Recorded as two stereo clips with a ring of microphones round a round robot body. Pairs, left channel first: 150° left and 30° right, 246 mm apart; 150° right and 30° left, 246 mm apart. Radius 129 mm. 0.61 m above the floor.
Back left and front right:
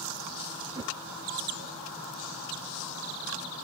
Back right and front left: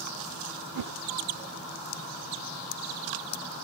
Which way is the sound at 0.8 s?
45° left.